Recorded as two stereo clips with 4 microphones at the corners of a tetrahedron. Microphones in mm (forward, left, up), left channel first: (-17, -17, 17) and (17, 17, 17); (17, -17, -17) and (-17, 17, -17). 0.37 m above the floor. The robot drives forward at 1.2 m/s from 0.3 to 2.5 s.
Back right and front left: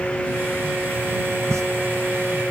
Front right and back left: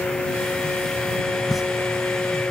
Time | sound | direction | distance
1.5 | a pop | 40° left | 0.7 m